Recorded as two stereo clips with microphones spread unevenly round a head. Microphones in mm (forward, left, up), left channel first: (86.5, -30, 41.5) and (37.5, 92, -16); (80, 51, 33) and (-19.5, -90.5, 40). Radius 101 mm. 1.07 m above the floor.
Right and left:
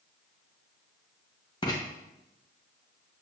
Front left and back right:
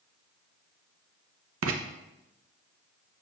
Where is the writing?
140° right, 0.7 m.